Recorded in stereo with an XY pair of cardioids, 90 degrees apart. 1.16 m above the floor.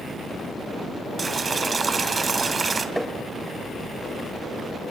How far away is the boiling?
About 2.5 m.